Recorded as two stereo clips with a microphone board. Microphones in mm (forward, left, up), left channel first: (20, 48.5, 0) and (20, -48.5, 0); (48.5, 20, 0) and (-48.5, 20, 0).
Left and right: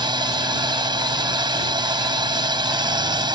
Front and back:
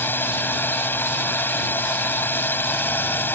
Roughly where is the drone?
Ahead right.